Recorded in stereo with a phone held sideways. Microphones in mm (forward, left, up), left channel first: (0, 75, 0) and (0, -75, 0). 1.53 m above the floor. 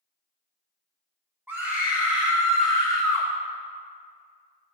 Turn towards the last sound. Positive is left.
turn(degrees=20)  # may be behind; listen again after turning